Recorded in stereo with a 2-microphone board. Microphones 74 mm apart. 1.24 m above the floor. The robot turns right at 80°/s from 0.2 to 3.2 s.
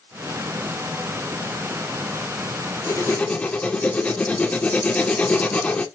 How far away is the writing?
About 2 m.